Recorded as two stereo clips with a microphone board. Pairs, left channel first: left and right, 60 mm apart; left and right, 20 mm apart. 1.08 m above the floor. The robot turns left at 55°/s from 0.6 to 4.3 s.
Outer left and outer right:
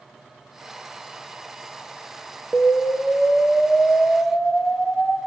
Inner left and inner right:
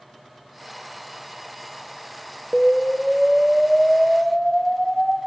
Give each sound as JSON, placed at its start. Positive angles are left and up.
{"t": 2.5, "sound": "an explosion", "side_deg": 10, "distance_m": 0.6}